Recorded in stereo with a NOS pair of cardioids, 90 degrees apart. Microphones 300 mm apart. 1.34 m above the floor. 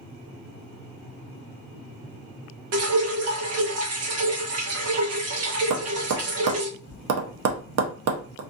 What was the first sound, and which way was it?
Dripping, 50° right.